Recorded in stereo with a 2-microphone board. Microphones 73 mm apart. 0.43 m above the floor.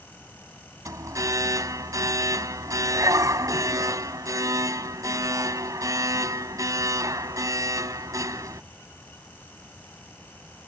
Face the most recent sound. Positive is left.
turn(degrees=-45)  # may be behind; listen again after turning